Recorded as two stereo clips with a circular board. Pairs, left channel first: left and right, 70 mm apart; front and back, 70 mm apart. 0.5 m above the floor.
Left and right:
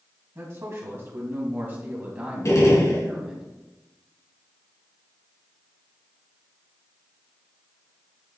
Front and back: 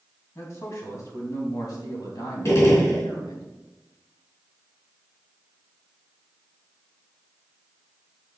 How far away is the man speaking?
About 3 m.